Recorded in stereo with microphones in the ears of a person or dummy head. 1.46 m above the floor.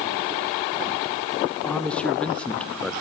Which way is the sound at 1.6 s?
5° left (ahead or behind).